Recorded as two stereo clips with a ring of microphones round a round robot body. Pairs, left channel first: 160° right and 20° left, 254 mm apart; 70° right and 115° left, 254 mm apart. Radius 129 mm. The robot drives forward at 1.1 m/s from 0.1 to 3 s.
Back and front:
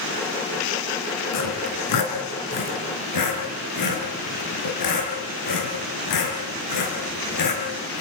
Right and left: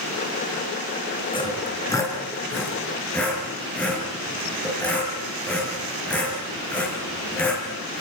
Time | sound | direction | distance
1.3 | sawing | 140° right | 3.5 m